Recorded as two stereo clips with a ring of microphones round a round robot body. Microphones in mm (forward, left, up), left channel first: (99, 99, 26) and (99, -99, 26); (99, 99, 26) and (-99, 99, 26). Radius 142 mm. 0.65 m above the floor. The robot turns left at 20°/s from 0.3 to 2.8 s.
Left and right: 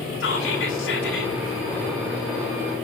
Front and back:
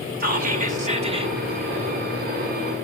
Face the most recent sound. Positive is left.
turn(degrees=85)